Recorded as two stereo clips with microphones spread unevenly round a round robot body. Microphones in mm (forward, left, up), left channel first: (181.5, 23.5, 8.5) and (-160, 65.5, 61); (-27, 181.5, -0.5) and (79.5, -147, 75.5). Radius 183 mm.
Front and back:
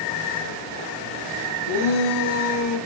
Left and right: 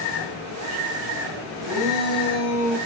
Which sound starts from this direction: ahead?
A shout, at 1.6 s.